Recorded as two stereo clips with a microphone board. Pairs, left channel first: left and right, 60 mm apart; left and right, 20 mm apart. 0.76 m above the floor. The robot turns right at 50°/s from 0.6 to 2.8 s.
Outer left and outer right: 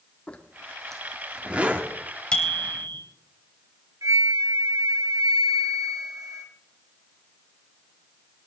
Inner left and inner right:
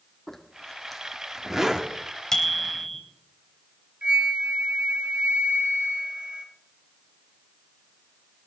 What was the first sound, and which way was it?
A zipper, 25° left (ahead or behind).